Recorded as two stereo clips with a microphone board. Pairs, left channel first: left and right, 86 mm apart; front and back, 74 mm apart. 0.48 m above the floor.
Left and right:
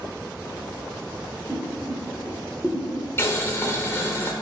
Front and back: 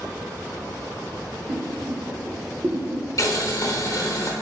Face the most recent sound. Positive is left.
turn(degrees=35)